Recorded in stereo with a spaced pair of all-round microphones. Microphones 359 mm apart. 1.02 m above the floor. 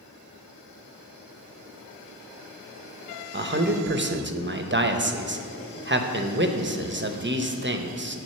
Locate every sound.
3.3 s a man speaking: 30° right (ahead or behind), 0.6 m